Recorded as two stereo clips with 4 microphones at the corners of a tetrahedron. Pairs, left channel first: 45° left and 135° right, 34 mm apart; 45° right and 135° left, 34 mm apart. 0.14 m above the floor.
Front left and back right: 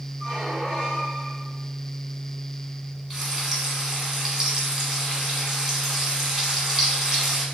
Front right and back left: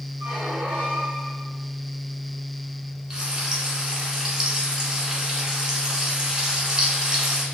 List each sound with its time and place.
0.2 s a squeak: 155° left, 1.4 m
3.1 s frying: 165° left, 1.3 m